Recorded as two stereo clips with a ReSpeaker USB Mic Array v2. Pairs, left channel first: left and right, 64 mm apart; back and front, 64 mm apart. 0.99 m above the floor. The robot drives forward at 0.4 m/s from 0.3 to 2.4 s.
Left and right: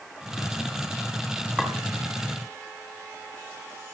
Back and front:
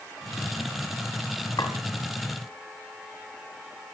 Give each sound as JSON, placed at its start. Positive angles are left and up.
{"t": 1.6, "sound": "a clink", "azimuth_deg": -170, "distance_m": 5.0}